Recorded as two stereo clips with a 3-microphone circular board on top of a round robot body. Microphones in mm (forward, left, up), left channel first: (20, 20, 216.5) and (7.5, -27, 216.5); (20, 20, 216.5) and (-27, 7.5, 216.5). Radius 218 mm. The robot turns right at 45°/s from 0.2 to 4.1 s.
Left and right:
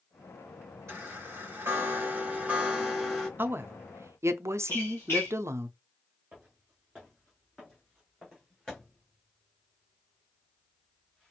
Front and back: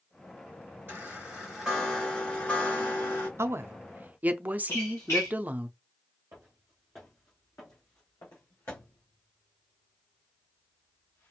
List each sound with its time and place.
0.9 s a chime: 115° right, 4 m; by 3.3 s 10° right, 4 m
3.4 s a woman speaking: 140° right, 0.7 m; by 5.7 s 110° right, 0.7 m
4.7 s a squeak: 40° left, 1.0 m
6.3 s footsteps: 170° right, 0.9 m; by 11.3 s 5° left, 3 m